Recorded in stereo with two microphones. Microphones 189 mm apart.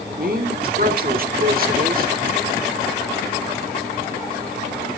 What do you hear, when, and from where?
0.2 s a woman speaking: 50° right (ahead or behind), 1.3 m